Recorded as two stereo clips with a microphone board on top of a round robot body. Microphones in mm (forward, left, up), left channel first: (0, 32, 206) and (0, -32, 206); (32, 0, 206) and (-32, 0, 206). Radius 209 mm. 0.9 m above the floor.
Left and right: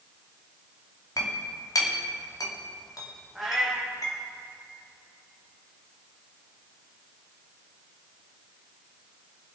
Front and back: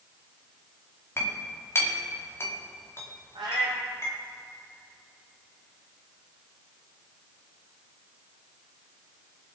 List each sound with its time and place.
1.2 s a clink: 55° left, 2 m
3.4 s a cat meowing: straight behind, 1.0 m